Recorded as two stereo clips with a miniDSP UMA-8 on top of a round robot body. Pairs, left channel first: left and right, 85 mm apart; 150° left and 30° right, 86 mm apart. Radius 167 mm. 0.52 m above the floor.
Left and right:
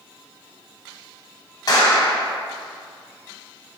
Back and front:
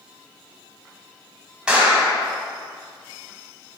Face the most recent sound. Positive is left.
turn(degrees=50)